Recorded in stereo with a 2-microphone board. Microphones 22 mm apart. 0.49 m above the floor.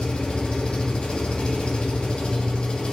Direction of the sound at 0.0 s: 55° left (ahead or behind).